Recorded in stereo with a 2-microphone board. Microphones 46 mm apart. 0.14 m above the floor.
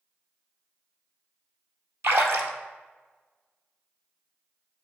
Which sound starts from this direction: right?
A splash, at 2.0 s.